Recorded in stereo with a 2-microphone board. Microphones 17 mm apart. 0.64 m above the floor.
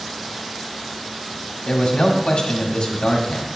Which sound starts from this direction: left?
A man speaking, at 1.7 s.